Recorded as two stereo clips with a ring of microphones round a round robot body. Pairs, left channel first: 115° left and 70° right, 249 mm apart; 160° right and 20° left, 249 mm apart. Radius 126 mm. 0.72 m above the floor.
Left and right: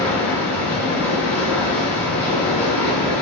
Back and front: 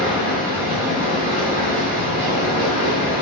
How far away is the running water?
About 0.7 m.